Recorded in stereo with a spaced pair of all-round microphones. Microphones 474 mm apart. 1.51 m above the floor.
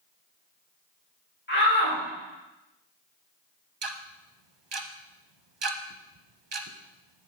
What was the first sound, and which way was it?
A shout, 20° left (ahead or behind).